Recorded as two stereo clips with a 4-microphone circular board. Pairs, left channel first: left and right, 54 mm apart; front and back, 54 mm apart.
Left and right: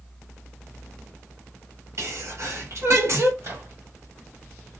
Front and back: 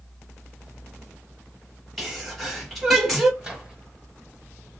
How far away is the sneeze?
About 1.5 m.